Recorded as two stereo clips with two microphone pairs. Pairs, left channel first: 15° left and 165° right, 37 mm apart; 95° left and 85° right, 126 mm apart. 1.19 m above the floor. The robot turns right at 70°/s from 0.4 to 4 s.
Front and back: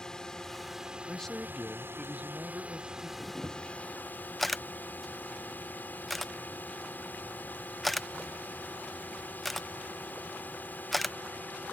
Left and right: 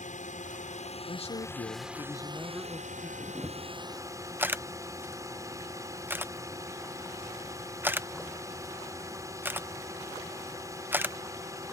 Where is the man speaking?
80° left; by 3.1 s 140° right.